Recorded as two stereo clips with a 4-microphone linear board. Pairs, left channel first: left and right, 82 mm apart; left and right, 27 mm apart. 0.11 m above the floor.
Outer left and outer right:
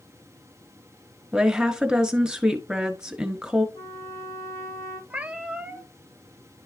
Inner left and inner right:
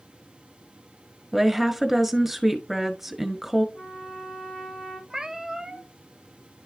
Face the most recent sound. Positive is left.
turn(degrees=-15)  # may be behind; listen again after turning